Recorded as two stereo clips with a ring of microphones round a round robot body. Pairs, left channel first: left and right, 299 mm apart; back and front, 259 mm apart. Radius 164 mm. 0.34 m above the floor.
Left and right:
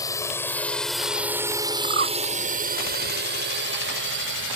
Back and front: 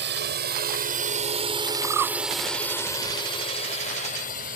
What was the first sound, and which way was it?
A drone, 15° left.